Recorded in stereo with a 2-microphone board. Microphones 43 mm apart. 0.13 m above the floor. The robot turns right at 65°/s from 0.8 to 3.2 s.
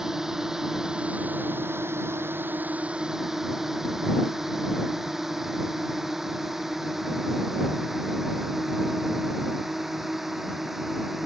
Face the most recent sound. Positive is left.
turn(degrees=-5)  # may be behind; listen again after turning